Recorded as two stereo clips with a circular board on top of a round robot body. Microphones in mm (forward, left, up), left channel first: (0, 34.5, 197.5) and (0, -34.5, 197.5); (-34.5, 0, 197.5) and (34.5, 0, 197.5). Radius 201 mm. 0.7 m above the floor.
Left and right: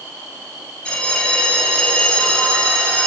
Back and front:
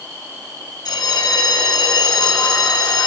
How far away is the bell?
About 5.5 m.